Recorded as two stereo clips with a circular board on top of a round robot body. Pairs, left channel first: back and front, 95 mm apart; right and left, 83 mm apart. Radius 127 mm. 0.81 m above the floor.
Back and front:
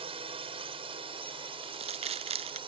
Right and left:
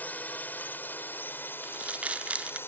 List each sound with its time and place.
0.0 s a drone: 20° right; by 2.7 s 30° right
1.6 s crumpling: 15° left